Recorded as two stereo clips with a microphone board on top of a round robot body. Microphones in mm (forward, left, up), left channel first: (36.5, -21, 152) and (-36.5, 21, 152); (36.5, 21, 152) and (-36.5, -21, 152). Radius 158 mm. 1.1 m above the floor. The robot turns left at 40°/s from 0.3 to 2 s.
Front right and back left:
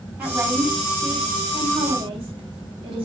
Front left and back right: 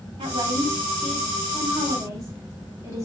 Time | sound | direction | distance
0.2 | a woman speaking | 140° right | 4 m